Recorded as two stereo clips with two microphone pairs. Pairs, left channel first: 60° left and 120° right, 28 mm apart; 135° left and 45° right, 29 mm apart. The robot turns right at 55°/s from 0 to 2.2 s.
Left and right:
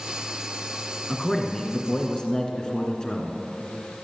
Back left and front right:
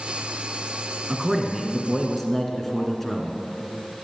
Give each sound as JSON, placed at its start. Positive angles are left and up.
{"t": 1.1, "sound": "a man speaking", "azimuth_deg": 5, "distance_m": 1.8}